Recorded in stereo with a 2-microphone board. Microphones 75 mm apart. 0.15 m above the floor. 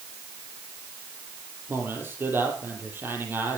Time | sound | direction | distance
1.7 | a man speaking | 30° right (ahead or behind) | 5 m